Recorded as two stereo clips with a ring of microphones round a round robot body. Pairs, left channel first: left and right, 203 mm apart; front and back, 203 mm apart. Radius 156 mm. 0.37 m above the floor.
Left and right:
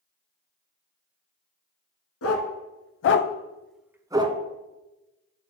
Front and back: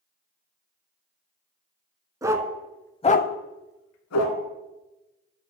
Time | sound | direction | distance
2.2 | a dog barking | 105° left | 1.1 m